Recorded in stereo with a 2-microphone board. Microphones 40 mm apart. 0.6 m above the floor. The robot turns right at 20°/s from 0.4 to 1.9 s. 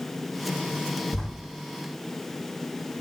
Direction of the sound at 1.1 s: 70° left (ahead or behind).